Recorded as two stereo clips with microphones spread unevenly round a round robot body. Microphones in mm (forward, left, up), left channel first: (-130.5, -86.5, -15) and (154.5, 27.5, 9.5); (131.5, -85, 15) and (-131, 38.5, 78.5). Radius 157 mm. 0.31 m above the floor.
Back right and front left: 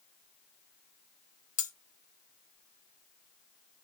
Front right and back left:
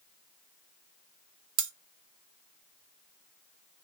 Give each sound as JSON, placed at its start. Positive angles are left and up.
{"t": 1.6, "sound": "cutlery clinking", "azimuth_deg": 150, "distance_m": 0.6}